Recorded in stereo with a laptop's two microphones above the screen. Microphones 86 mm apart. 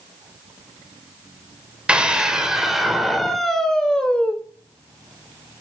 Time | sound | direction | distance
1.9 | a scream | 10° right (ahead or behind) | 4 m